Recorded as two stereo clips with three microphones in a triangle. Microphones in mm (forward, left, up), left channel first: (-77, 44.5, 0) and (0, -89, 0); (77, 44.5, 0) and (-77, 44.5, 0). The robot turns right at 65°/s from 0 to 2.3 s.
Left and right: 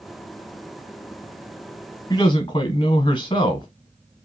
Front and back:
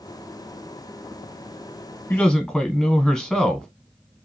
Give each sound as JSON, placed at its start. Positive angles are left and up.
{"t": 2.1, "sound": "a man speaking", "azimuth_deg": 70, "distance_m": 1.0}